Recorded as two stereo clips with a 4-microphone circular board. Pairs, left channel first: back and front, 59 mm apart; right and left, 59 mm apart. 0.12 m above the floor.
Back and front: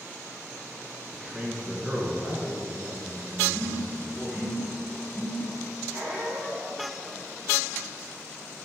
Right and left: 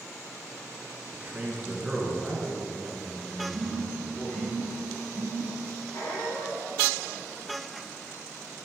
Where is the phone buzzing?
110° left, 1.6 m.